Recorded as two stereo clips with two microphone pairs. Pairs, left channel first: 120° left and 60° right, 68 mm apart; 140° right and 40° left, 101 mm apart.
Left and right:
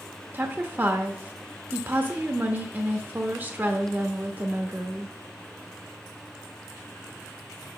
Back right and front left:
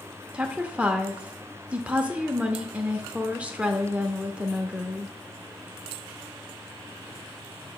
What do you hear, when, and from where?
0.3 s a woman speaking: 30° right, 0.8 m